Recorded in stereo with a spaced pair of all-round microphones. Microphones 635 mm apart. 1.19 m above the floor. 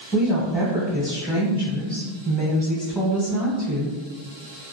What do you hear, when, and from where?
0.1 s a woman speaking: 5° right (ahead or behind), 0.8 m